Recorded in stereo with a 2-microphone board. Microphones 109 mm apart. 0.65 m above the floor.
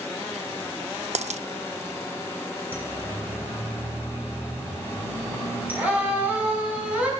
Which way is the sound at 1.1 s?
75° right (ahead or behind).